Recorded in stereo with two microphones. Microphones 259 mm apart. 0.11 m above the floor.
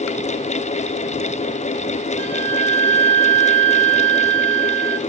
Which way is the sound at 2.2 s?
75° left (ahead or behind).